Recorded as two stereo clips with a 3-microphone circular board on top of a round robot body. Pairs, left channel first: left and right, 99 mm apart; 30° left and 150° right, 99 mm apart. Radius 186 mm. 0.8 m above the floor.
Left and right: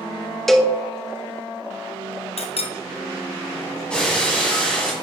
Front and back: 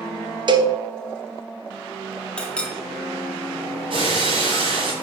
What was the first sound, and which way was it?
A cowbell, 175° left.